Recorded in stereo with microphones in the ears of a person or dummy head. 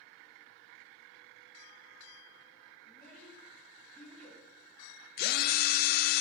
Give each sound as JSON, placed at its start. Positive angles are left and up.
{"t": 2.9, "sound": "a child speaking", "side_deg": 5, "distance_m": 2.5}
{"t": 5.2, "sound": "a drill", "side_deg": 60, "distance_m": 0.6}